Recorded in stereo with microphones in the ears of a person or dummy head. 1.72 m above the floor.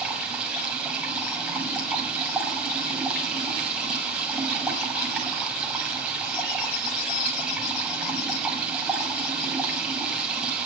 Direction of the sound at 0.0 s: 10° right (ahead or behind).